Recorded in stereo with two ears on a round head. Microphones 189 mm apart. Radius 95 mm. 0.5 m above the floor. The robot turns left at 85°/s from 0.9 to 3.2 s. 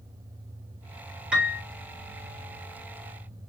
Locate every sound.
1.3 s a piano: 5° right (ahead or behind), 1.3 m; by 1.6 s 15° right (ahead or behind), 1.3 m